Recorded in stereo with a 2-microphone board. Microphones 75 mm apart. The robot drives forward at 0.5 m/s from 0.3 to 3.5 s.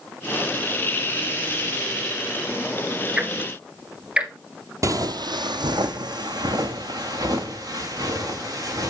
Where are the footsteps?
45° right (ahead or behind), 0.5 m; by 8.9 s 55° right (ahead or behind), 3.5 m.